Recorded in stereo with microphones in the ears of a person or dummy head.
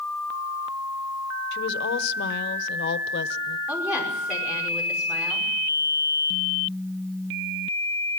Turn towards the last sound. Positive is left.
turn(degrees=-5)  # may be behind; listen again after turning